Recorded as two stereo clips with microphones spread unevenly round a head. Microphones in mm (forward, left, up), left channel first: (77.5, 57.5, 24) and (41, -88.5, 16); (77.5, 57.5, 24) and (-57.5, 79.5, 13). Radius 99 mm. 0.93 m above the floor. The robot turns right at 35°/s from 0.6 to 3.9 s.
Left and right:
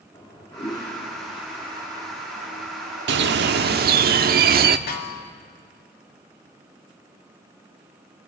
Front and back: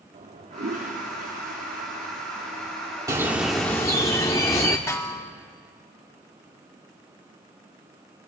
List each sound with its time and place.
0.1 s a toilet flushing: 145° left, 3 m; by 4.1 s 100° right, 3 m
3.1 s a bird: 115° right, 0.9 m; by 4.8 s 85° right, 0.9 m
4.9 s a snare drum: 65° left, 2 m